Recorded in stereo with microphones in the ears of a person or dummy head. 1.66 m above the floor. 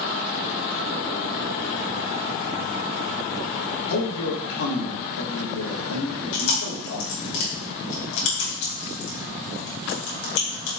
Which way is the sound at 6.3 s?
75° left (ahead or behind).